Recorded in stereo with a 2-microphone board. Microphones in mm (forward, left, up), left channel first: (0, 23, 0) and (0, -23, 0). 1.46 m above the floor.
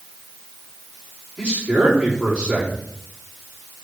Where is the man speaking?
15° right (ahead or behind), 4.5 m.